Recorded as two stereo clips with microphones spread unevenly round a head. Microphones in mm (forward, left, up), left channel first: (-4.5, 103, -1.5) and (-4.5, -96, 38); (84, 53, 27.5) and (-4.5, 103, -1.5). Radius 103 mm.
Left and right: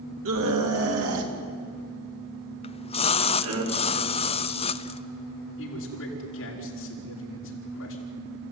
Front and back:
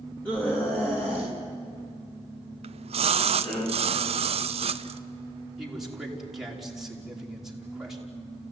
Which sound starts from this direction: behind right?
A scream, at 0.2 s.